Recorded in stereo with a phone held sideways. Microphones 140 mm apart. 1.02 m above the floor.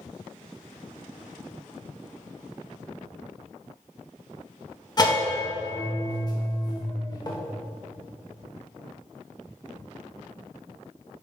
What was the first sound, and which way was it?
A bell, 30° left (ahead or behind).